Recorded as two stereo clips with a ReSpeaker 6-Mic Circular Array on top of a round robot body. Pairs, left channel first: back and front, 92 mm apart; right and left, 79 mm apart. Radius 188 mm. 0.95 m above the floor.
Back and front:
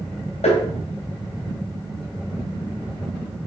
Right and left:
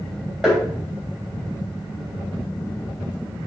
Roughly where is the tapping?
Behind.